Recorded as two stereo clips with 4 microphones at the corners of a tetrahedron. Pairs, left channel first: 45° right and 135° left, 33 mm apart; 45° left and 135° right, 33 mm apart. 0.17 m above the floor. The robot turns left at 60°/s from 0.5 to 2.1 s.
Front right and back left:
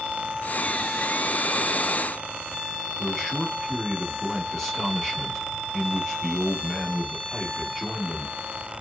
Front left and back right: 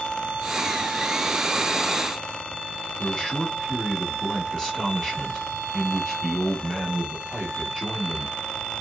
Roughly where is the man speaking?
Ahead.